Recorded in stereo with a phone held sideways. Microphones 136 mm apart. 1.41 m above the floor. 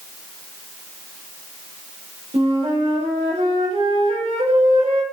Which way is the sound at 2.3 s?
45° right (ahead or behind).